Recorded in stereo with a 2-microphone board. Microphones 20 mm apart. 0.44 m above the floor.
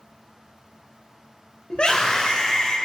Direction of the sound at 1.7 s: 55° left (ahead or behind).